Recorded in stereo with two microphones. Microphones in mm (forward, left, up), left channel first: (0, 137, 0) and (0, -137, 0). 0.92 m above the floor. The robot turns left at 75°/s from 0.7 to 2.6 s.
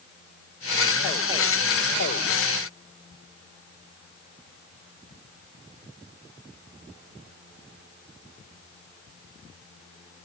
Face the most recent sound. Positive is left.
No sound to turn to.